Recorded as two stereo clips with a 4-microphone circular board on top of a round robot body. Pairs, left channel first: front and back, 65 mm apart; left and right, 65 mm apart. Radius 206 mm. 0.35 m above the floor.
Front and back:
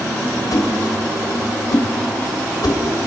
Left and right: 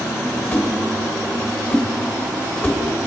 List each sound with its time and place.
0.5 s a whoosh: 30° left, 2.5 m